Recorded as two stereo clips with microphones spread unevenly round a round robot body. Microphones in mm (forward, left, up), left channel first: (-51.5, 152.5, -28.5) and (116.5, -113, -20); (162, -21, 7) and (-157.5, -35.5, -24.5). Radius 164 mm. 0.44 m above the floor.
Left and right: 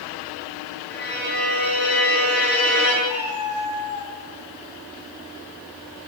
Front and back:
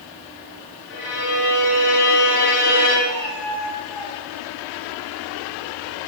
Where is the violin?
65° left, 7 m.